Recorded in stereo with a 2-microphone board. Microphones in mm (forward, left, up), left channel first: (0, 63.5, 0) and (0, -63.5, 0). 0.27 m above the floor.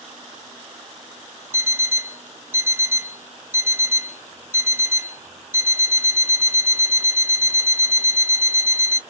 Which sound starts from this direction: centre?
An alarm clock, at 1.5 s.